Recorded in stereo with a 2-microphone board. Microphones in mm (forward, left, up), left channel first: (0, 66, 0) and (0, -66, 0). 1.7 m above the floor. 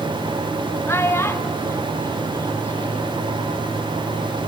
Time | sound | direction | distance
0.9 | a child speaking | 20° left (ahead or behind) | 1.0 m